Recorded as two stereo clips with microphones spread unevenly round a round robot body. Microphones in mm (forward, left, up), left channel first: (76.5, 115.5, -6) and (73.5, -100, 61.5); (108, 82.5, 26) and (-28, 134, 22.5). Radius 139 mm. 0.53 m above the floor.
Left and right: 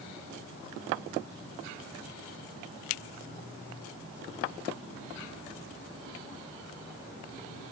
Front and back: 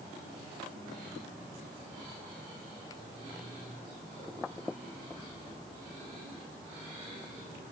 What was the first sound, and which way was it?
Only background noise.